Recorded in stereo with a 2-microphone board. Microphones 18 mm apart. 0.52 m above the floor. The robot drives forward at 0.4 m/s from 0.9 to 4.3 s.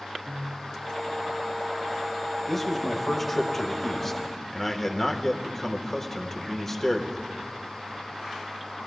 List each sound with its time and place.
0.2 s a piano: 65° right (ahead or behind), 3.5 m
2.5 s a man speaking: 10° left (ahead or behind), 1.7 m; by 7.2 s 15° left (ahead or behind), 1.1 m